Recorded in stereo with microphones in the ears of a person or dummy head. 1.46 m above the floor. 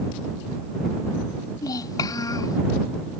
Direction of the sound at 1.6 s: 25° left (ahead or behind).